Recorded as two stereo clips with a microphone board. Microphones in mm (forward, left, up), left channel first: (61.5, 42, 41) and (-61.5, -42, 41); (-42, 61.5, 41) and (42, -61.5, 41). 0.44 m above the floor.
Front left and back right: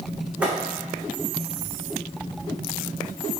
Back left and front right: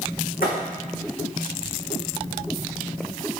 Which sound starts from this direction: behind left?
A thud, at 0.4 s.